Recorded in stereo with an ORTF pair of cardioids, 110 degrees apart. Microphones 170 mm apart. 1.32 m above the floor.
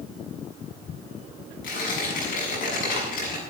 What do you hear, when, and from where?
1.6 s tearing paper: 65° left, 7 m